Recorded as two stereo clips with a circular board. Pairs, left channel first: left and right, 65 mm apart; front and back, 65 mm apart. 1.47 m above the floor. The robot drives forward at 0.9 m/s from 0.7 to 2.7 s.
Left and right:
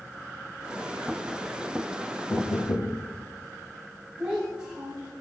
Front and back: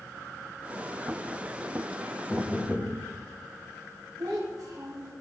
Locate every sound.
2.3 s knocking: 60° left, 1.7 m; by 3.0 s 70° left, 1.6 m
4.2 s a child speaking: 160° right, 5.5 m